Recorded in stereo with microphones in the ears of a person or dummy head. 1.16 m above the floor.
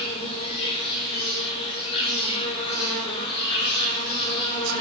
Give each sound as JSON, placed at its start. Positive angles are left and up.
{"t": 0.0, "sound": "an insect", "side_deg": 40, "distance_m": 7.0}